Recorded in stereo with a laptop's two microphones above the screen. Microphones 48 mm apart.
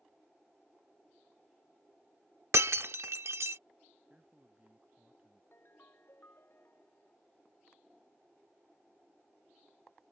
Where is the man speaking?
25° right (ahead or behind).